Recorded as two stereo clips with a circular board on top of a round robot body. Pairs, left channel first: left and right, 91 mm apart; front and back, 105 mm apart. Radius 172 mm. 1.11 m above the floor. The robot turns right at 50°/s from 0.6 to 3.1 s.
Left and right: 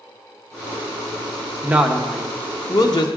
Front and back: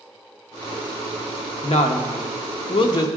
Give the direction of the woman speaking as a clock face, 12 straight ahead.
1 o'clock.